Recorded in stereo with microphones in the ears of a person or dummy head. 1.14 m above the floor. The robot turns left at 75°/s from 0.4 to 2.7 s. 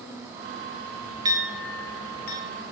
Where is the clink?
20° right (ahead or behind), 0.9 m; by 2.4 s 55° left (ahead or behind), 0.9 m.